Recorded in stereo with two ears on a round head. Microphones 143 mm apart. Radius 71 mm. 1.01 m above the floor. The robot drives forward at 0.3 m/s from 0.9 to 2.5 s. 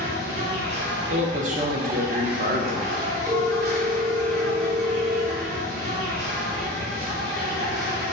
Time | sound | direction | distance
0.0 | an insect | 75° right (ahead or behind) | 1.4 m
1.1 | a man speaking | 45° right (ahead or behind) | 0.7 m
3.3 | a phone ringing | 20° right (ahead or behind) | 0.9 m